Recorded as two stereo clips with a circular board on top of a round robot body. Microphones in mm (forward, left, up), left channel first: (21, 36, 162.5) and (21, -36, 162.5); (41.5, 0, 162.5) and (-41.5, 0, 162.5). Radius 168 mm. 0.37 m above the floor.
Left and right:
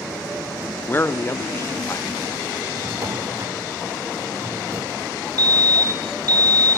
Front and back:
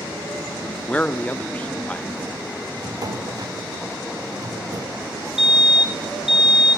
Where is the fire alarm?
95° right, 3 m.